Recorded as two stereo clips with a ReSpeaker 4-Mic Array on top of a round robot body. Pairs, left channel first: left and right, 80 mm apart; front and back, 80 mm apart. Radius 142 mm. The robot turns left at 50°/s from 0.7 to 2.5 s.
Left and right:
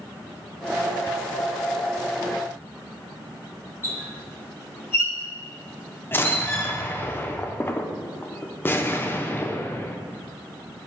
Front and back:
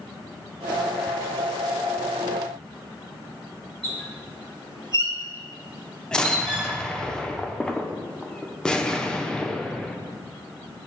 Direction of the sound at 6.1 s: 70° left.